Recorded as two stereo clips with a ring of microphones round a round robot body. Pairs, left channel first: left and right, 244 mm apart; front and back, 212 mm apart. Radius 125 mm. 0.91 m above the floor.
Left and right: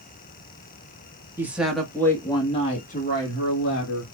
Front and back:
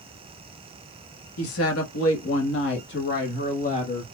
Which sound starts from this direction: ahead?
A woman speaking, at 1.4 s.